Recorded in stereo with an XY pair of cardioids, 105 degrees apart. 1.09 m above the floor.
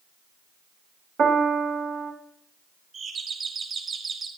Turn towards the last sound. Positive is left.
turn(degrees=-55)